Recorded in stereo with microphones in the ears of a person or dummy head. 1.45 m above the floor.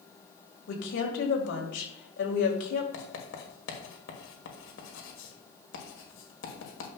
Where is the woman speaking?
65° left (ahead or behind), 1.8 m.